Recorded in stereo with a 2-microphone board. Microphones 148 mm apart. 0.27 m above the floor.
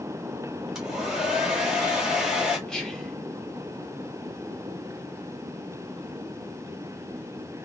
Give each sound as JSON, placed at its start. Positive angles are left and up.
{"t": 0.8, "sound": "a hair dryer", "side_deg": -5, "distance_m": 1.4}
{"t": 2.7, "sound": "whispering", "side_deg": 5, "distance_m": 0.9}